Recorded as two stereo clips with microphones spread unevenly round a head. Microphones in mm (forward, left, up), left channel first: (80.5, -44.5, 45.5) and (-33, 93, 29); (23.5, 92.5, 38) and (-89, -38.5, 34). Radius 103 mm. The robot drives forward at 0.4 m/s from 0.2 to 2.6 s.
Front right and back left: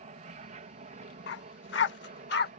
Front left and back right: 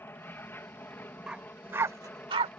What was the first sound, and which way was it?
An aircraft, 120° left.